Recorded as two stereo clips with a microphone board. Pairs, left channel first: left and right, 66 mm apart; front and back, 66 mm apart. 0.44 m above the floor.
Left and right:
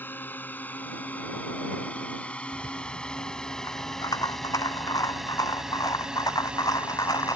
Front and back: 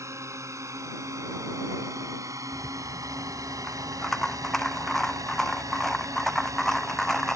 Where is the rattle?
85° left.